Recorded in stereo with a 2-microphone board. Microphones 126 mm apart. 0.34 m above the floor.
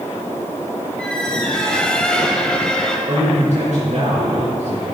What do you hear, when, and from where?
1.0 s a squeak: 5° left (ahead or behind), 1.2 m
3.1 s a man speaking: 70° right (ahead or behind), 3.5 m